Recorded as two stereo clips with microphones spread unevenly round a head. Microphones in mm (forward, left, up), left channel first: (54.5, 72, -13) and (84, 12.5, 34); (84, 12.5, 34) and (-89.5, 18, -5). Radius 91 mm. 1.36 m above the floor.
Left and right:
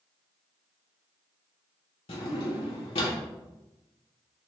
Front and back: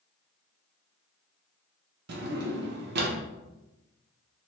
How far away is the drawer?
About 0.6 m.